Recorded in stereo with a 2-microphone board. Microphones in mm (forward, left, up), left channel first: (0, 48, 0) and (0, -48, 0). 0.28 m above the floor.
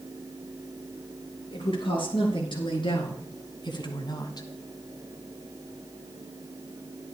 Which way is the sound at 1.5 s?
60° left (ahead or behind).